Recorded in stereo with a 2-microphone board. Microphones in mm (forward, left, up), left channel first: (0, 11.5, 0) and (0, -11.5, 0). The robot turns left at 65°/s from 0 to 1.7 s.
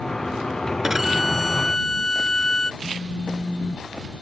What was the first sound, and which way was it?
A violin, 155° right.